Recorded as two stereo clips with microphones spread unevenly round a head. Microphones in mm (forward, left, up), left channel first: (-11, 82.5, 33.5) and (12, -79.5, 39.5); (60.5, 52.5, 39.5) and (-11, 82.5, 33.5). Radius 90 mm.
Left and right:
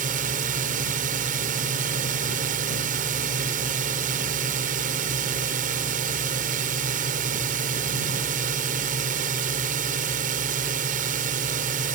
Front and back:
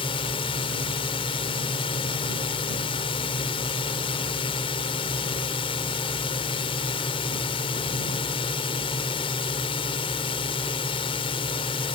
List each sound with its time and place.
0.0 s a drone: 40° right